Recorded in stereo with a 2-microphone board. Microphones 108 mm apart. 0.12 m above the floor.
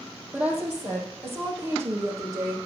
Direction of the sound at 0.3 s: 10° right (ahead or behind).